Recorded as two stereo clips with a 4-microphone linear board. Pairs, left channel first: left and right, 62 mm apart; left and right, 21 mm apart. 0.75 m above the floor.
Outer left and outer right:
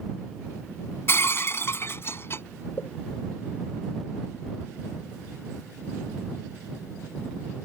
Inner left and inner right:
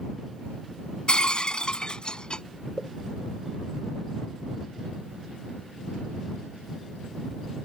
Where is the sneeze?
No sneeze in this recording.